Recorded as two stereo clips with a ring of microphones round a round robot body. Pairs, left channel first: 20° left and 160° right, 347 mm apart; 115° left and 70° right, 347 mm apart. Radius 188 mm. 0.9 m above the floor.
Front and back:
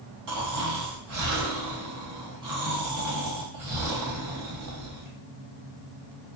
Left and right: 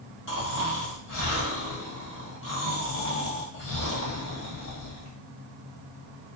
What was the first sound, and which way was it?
Snoring, 165° left.